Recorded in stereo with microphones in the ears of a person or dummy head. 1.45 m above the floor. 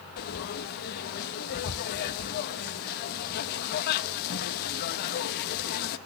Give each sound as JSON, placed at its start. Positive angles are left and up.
{"t": 0.2, "sound": "frying", "side_deg": 55, "distance_m": 1.2}